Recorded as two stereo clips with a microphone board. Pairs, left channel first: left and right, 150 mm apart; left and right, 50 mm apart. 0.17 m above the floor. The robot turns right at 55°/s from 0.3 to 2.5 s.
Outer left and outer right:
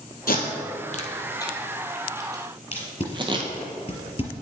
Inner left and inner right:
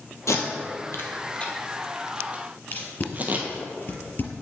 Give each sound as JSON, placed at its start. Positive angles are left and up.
{"t": 0.3, "sound": "tape being pulled", "side_deg": 80, "distance_m": 1.2}
{"t": 2.7, "sound": "tape being pulled", "side_deg": 45, "distance_m": 1.7}